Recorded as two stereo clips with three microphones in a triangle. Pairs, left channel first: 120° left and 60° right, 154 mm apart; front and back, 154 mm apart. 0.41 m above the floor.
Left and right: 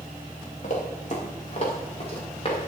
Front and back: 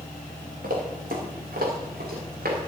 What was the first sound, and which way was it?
Running footsteps, 160° left.